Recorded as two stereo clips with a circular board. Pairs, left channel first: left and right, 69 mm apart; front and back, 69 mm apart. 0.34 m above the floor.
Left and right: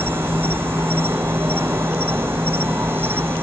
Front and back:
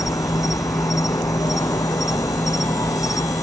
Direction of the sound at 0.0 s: 35° right.